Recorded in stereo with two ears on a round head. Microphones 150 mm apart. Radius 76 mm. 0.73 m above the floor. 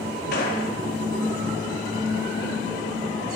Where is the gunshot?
65° left (ahead or behind), 3 m.